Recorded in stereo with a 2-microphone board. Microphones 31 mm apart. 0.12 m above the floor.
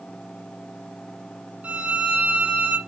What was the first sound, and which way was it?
A violin, 55° right (ahead or behind).